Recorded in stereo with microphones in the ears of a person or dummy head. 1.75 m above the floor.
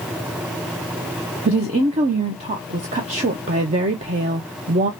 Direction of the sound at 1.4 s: 35° right (ahead or behind).